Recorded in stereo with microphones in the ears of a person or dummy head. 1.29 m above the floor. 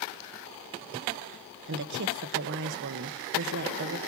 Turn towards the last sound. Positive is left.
turn(degrees=-60)  # may be behind; listen again after turning